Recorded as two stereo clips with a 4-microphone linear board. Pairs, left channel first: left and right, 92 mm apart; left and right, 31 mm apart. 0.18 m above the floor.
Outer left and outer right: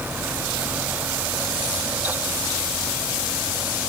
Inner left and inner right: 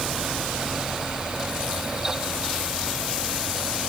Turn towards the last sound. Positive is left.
No sound to turn to.